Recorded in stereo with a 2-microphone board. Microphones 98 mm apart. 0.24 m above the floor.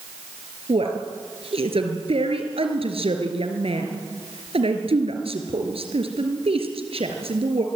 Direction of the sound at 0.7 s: 75° right (ahead or behind).